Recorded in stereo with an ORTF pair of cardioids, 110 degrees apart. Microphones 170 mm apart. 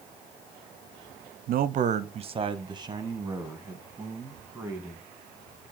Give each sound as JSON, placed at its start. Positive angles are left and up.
{"t": 1.5, "sound": "a man speaking", "azimuth_deg": -65, "distance_m": 0.6}